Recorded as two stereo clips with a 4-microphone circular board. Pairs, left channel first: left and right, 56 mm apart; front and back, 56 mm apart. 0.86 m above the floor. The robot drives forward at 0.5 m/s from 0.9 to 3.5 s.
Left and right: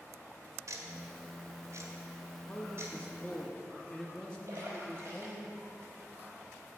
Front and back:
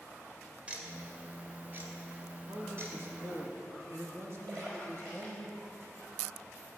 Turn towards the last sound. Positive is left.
turn(degrees=-140)